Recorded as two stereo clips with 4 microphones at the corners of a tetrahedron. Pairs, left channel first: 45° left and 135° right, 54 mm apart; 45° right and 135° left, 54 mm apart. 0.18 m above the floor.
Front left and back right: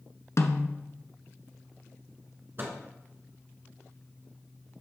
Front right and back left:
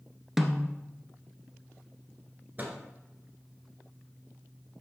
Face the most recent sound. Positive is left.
turn(degrees=-175)